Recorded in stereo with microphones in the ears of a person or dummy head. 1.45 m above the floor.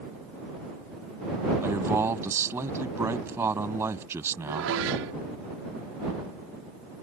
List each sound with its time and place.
1.6 s a man speaking: 10° right (ahead or behind)
4.5 s dishes clattering: 80° right